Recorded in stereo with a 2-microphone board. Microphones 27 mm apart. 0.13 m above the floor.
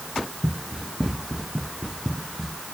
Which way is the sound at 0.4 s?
10° right (ahead or behind).